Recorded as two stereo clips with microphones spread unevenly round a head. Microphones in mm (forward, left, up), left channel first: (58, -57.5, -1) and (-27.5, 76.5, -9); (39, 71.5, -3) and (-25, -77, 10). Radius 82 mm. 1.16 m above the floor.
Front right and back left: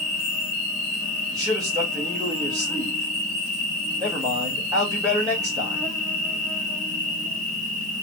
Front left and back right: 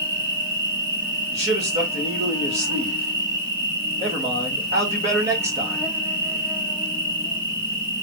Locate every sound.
0.0 s an insect: 175° right, 3 m
1.3 s a man speaking: 170° right, 2.5 m